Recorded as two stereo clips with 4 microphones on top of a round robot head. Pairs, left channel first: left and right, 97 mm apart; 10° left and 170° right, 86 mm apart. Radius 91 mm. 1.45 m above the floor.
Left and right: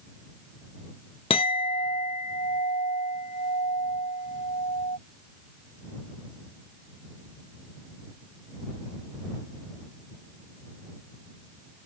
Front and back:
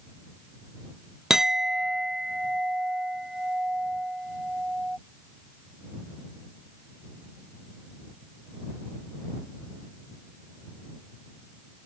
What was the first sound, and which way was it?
A clink, 105° left.